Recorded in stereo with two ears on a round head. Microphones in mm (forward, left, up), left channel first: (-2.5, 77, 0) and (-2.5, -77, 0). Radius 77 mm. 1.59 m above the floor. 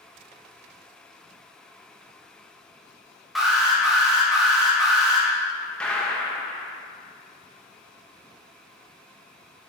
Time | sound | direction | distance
3.4 | an alarm | centre (ahead or behind) | 2.5 m
5.8 | a gunshot | 5° left (ahead or behind) | 1.2 m